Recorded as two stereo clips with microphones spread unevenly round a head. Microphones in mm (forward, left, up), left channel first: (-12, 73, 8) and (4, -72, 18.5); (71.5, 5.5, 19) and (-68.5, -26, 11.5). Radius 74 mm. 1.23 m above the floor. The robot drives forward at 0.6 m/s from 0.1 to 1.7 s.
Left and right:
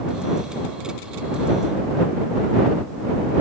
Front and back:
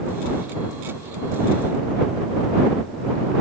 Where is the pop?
No pop in this recording.